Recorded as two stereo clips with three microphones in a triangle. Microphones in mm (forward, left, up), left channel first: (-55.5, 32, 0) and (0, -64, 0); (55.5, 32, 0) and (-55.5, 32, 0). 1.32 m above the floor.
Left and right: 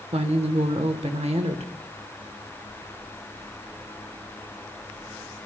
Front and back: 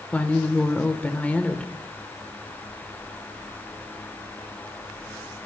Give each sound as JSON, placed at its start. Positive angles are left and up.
{"t": 0.1, "sound": "a woman speaking", "azimuth_deg": -75, "distance_m": 1.0}